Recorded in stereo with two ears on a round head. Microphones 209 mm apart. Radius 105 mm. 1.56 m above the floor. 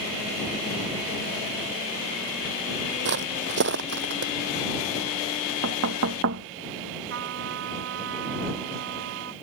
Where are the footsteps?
50° right (ahead or behind).